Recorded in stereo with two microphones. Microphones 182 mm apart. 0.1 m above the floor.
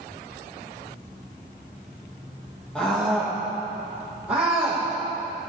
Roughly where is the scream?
Centre.